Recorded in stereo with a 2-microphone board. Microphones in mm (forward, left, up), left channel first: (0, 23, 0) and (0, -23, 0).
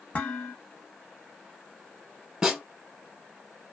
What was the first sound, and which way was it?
Dishes clattering, 30° left (ahead or behind).